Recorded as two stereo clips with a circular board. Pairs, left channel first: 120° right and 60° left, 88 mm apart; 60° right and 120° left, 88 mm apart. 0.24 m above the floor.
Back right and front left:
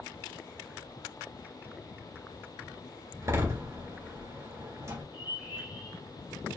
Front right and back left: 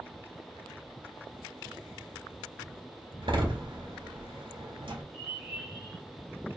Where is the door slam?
115° left, 2.5 m.